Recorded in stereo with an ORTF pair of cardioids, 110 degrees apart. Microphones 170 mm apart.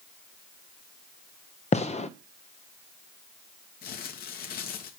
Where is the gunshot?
40° left, 0.9 m.